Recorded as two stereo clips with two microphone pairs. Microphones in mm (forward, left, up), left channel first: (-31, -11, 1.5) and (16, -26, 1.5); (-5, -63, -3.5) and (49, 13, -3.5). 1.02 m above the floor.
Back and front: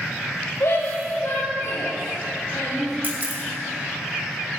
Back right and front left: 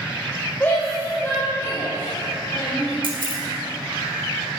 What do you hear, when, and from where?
0.6 s a shout: 165° left, 5.5 m; by 2.9 s 170° left, 7.5 m
3.0 s a camera shutter: 30° left, 3 m